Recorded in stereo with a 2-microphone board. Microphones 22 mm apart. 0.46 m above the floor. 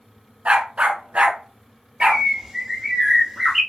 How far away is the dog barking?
About 1.7 m.